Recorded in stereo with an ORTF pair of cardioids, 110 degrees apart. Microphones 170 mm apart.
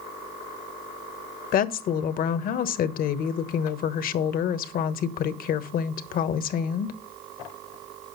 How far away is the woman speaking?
About 1.3 m.